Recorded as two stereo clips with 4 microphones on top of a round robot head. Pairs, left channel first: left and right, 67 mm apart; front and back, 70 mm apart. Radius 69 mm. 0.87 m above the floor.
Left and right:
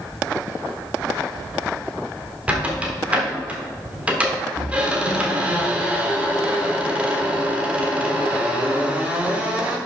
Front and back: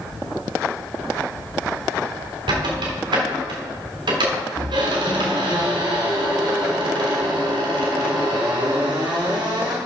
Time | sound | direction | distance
2.5 | a squeak | 160° right | 1.6 m